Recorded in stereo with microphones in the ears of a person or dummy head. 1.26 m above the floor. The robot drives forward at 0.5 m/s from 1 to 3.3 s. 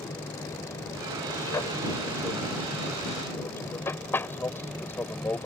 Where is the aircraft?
20° left (ahead or behind); by 5.5 s 10° left (ahead or behind).